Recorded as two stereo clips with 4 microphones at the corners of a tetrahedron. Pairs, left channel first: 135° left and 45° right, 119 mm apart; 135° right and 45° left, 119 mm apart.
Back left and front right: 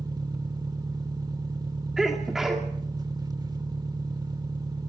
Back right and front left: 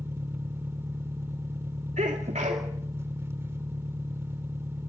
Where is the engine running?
10° right, 1.0 m.